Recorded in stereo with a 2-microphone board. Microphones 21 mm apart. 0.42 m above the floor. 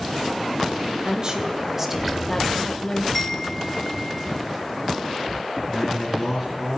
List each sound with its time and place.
1.0 s a woman speaking: 45° right (ahead or behind), 1.9 m; by 3.0 s 30° left (ahead or behind), 2.0 m
3.1 s a chime: 10° left (ahead or behind), 1.1 m
5.7 s a man speaking: 5° right (ahead or behind), 5.5 m